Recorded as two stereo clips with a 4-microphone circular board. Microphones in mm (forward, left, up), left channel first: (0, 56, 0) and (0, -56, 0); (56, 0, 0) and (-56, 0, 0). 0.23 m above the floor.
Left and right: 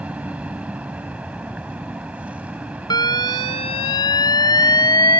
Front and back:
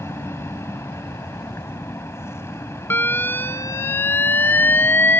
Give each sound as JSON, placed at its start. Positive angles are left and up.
{"t": 0.0, "sound": "an aircraft", "azimuth_deg": -25}
{"t": 2.9, "sound": "an alarm", "azimuth_deg": 65}